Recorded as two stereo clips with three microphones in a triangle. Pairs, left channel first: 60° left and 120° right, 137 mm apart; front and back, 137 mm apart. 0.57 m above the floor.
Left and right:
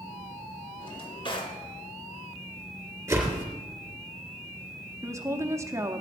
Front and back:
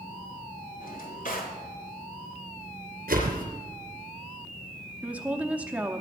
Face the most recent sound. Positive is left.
turn(degrees=-120)